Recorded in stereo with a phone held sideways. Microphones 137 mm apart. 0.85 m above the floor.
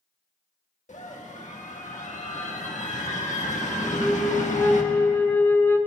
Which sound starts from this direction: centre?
A flute, at 3.8 s.